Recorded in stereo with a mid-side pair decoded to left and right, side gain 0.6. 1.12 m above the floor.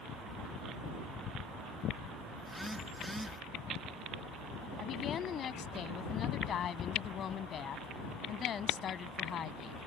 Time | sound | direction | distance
2.4 | a phone buzzing | 5° right | ?
4.8 | a woman speaking | 45° left | ?